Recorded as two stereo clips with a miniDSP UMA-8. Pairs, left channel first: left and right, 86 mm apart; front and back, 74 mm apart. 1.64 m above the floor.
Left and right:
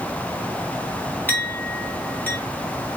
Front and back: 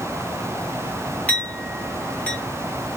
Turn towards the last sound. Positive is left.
turn(degrees=50)